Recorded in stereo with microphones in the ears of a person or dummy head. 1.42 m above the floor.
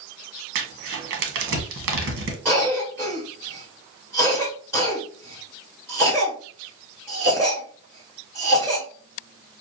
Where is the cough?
10° right (ahead or behind), 1.4 m.